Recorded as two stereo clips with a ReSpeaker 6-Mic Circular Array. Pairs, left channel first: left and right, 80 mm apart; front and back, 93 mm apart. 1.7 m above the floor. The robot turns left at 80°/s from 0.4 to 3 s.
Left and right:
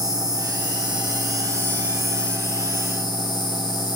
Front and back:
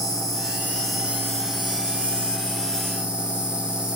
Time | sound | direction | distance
0.0 | an insect | 50° right | 2.5 m